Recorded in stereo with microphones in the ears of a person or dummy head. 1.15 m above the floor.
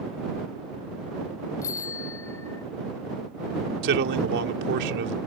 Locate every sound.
1.6 s a bicycle bell: 15° left (ahead or behind)
3.8 s a man speaking: 65° right (ahead or behind)